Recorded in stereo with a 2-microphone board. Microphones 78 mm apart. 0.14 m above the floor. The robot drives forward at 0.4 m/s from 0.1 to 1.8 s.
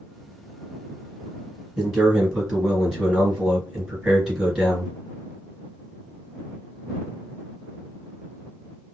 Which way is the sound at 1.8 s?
10° right (ahead or behind).